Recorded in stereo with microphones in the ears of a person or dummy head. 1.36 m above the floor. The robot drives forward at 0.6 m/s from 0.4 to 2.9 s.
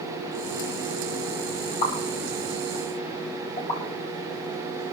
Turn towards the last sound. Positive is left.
turn(degrees=40)  # may be behind; listen again after turning